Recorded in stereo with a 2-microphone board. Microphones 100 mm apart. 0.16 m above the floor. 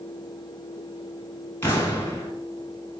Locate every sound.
1.6 s an explosion: 25° left (ahead or behind), 0.8 m